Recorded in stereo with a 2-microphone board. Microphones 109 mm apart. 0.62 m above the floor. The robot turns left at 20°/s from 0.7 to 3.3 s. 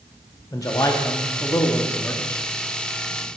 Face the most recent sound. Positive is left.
turn(degrees=15)